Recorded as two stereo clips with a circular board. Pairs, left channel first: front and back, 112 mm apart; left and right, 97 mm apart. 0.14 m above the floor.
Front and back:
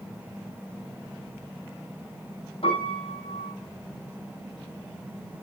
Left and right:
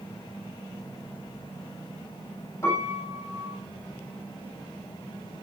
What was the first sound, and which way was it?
A piano, 30° left.